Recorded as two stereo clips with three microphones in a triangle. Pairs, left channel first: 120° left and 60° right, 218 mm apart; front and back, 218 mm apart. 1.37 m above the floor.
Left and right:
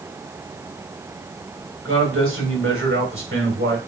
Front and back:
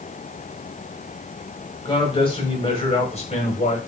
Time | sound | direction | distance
1.9 | a man speaking | 65° right | 4.5 m